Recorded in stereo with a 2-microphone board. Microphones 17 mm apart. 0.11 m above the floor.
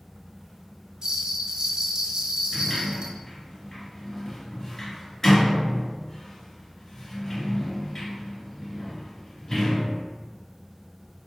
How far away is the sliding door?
About 1.4 m.